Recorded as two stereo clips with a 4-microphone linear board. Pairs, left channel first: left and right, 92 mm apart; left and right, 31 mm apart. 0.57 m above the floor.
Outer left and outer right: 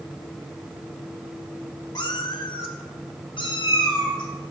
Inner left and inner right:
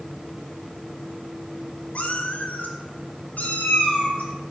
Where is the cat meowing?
50° left (ahead or behind), 0.7 m; by 4.5 s 55° left (ahead or behind), 2.5 m.